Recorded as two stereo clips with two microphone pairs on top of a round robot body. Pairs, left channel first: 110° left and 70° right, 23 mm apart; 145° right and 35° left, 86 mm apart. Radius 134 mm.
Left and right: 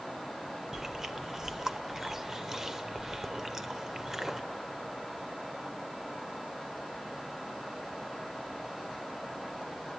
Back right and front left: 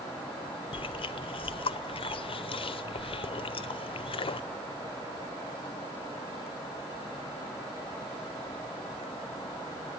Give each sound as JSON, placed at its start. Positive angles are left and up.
{"t": 0.7, "sound": "chewing", "azimuth_deg": -140, "distance_m": 0.6}